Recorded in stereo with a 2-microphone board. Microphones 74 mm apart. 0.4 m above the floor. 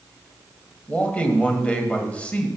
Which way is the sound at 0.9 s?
20° left (ahead or behind).